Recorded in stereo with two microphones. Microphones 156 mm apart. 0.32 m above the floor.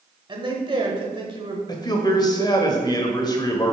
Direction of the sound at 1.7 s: 25° left (ahead or behind).